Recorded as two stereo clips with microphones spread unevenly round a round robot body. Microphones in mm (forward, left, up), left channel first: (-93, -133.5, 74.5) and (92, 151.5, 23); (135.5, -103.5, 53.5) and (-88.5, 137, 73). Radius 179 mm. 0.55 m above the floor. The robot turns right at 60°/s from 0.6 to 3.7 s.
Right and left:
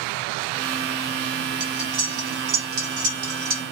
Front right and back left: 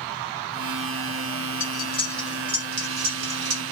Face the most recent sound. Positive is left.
turn(degrees=130)